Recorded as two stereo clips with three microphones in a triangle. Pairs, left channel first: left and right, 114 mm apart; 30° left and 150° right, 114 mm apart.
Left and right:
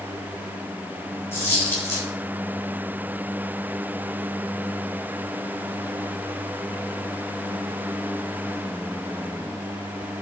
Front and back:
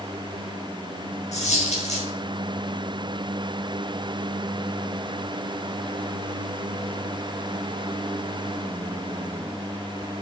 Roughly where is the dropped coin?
Ahead.